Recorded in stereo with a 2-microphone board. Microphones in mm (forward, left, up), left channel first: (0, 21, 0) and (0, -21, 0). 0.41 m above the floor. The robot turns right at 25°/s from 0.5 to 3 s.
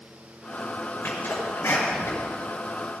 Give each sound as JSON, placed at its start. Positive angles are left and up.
{"t": 1.0, "sound": "a sneeze", "side_deg": 55, "distance_m": 6.5}